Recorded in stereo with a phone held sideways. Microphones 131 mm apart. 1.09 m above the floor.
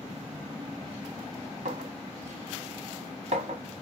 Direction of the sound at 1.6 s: 60° right (ahead or behind).